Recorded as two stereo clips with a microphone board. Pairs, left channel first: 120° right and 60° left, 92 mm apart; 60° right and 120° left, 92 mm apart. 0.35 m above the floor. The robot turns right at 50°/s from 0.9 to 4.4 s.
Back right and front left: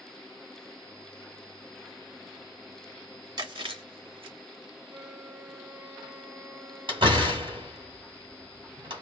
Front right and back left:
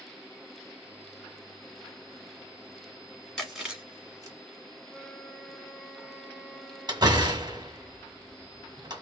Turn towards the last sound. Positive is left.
turn(degrees=85)